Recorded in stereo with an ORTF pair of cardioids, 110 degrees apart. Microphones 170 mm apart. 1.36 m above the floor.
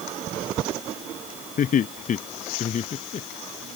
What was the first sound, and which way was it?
Laughter, 50° left.